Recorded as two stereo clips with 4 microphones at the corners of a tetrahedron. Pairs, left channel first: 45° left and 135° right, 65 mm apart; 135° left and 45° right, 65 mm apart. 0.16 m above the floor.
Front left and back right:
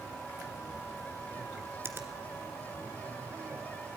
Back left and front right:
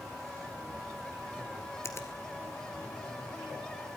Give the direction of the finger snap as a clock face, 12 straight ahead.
6 o'clock.